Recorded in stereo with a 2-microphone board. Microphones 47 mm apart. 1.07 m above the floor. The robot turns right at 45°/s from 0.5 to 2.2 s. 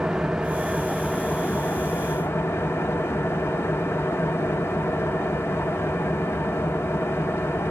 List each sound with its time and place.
0.0 s an engine running: 15° right, 1.2 m; by 7.7 s 60° left, 1.2 m